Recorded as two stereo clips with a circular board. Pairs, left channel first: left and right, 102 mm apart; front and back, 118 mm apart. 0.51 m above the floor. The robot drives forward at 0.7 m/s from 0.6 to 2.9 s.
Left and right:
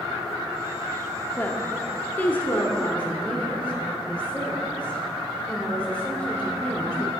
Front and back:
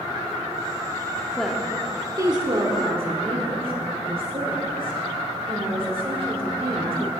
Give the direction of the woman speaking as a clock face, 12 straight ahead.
9 o'clock.